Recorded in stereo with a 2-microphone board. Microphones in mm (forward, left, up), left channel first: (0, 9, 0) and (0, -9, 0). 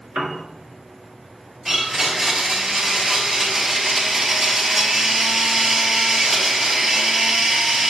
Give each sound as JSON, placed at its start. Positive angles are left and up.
{"t": 0.1, "sound": "a piano", "side_deg": -50, "distance_m": 1.3}
{"t": 1.6, "sound": "a blender", "side_deg": -35, "distance_m": 3.5}